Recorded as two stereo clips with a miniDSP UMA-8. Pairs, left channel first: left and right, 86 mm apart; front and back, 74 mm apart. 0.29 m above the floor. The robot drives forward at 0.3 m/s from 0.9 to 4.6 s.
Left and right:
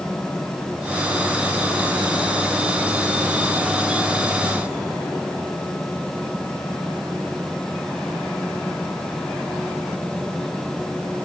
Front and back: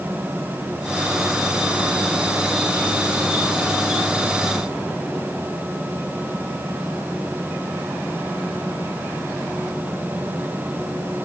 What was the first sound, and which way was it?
Only background noise.